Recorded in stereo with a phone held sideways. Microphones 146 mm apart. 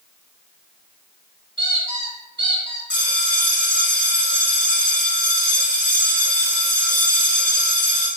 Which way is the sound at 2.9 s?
10° left (ahead or behind).